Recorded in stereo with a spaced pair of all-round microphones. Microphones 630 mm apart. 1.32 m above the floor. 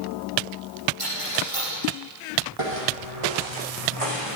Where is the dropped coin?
55° right (ahead or behind), 8 m.